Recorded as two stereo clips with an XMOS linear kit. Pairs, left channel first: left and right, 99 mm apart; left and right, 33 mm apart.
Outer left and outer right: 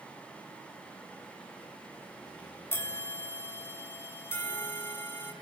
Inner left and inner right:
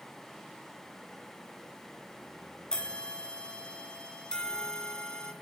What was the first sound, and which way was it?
A bell, 25° left (ahead or behind).